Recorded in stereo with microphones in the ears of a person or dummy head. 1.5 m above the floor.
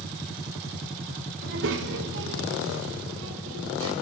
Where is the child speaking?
65° right (ahead or behind), 2 m; by 3.9 s 75° right (ahead or behind), 5 m.